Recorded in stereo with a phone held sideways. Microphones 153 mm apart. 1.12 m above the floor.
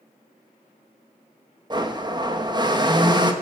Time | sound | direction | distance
1.7 | a blender | 30° right (ahead or behind) | 1.3 m